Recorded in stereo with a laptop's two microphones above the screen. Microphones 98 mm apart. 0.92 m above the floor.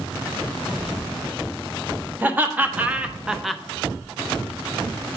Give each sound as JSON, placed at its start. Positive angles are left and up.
{"t": 2.2, "sound": "laughter", "side_deg": -20, "distance_m": 1.5}